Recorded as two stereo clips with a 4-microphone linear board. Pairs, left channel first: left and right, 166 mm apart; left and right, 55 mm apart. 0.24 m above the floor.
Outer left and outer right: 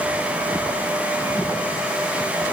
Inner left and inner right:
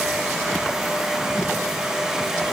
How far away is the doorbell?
I don't hear a doorbell.